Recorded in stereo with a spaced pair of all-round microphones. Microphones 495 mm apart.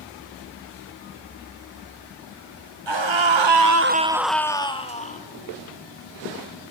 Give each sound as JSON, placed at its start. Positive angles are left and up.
{"t": 2.9, "sound": "a scream", "side_deg": -60, "distance_m": 1.1}